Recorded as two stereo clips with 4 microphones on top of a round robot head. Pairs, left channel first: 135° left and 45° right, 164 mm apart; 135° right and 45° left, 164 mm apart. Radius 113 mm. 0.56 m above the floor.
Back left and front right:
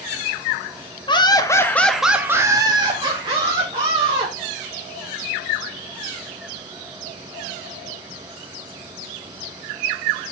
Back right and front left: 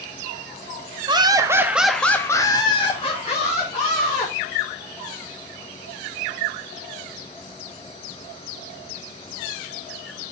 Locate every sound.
1.1 s laughter: 90° left, 1.2 m; by 4.3 s 90° right, 2.5 m